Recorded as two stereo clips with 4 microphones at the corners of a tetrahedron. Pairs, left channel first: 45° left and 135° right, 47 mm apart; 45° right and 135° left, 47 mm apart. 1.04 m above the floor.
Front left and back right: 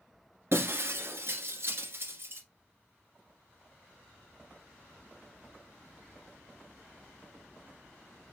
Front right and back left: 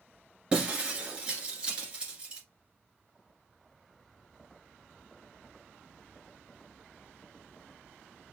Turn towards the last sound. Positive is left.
turn(degrees=-160)